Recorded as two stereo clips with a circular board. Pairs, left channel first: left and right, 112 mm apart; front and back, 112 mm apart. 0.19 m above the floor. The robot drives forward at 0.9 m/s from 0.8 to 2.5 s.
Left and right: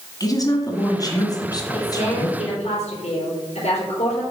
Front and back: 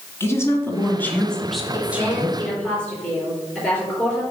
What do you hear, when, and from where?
0.2 s a woman speaking: 55° left, 1.8 m; by 2.4 s 125° left, 1.8 m
1.7 s a woman speaking: 75° left, 4.5 m; by 4.2 s 85° left, 4 m